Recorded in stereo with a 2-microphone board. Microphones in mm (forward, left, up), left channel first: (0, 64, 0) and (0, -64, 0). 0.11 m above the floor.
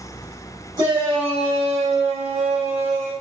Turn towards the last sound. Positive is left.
turn(degrees=-65)  # may be behind; listen again after turning